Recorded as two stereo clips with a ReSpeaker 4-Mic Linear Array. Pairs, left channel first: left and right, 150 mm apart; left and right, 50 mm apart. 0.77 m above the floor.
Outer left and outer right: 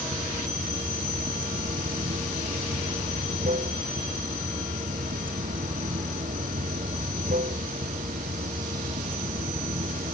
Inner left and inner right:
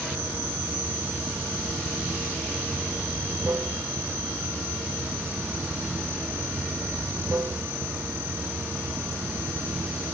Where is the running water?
65° right (ahead or behind).